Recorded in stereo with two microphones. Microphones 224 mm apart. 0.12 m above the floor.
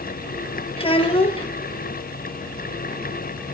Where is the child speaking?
25° left (ahead or behind), 1.9 m.